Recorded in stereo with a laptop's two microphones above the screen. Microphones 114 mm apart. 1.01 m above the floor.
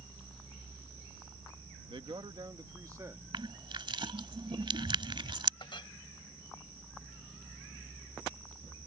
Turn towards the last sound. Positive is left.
turn(degrees=50)  # may be behind; listen again after turning